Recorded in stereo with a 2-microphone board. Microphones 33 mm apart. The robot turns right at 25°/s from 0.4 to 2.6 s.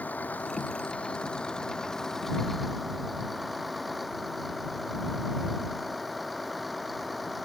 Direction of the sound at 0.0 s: 125° left.